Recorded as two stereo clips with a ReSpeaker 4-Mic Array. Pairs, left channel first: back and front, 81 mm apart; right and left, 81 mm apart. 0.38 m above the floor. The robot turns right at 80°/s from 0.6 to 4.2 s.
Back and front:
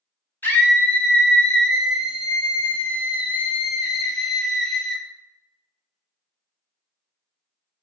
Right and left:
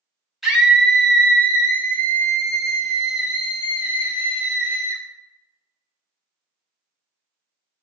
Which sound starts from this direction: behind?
A scream, at 0.4 s.